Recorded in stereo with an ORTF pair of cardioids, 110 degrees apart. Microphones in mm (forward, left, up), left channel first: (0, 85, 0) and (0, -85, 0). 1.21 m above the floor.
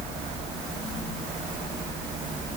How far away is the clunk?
No clunk in this recording.